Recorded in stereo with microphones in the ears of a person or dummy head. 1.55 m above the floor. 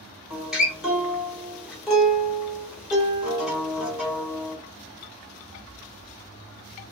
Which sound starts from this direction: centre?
A guitar, at 0.3 s.